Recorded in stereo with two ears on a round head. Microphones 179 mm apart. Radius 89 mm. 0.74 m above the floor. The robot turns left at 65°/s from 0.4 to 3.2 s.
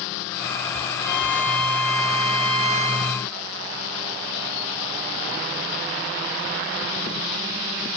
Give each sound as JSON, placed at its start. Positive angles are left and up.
{"t": 1.0, "sound": "a violin", "azimuth_deg": 165, "distance_m": 5.0}